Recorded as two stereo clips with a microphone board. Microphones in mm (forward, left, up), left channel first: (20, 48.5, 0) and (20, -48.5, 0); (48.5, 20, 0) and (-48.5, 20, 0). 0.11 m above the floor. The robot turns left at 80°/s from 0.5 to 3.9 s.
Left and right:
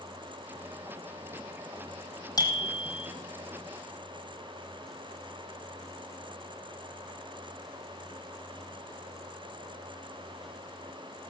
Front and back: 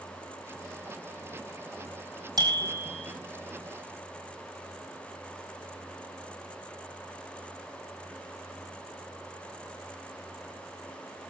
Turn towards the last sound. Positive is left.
turn(degrees=15)